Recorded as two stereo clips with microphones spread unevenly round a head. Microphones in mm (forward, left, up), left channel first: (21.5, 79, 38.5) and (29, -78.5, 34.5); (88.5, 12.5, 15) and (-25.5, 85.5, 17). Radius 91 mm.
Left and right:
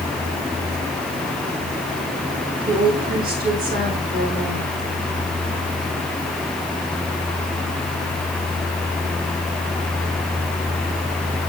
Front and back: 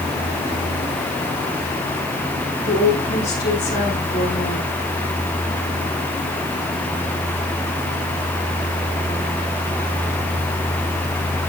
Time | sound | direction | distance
2.6 | a woman speaking | 60° right | 8.5 m